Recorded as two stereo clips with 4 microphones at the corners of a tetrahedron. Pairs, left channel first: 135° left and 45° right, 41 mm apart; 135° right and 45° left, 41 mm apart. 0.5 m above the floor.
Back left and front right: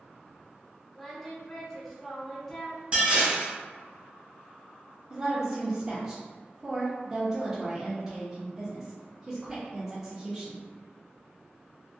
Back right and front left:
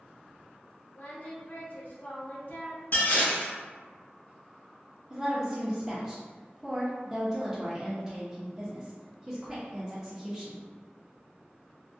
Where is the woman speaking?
10° left, 0.7 m.